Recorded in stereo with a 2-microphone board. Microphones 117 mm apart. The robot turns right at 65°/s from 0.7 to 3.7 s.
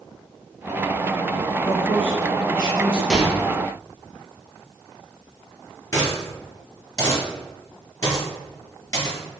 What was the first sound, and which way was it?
A man speaking, 140° left.